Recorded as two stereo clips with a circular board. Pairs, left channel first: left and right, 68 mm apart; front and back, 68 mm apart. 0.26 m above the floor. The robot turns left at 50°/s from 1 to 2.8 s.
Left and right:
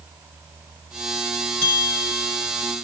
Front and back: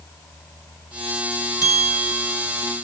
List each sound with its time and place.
1.6 s a bell: 30° left, 3.5 m; by 2.5 s 15° right, 3.5 m